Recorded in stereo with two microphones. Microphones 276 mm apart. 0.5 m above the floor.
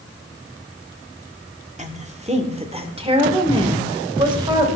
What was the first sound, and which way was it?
A woman speaking, 25° right (ahead or behind).